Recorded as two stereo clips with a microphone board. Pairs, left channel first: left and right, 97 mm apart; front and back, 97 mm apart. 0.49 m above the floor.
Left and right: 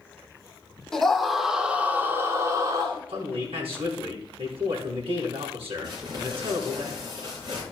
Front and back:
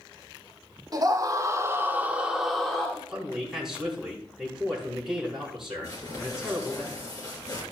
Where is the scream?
175° left, 1.5 m; by 3.0 s 75° right, 1.4 m.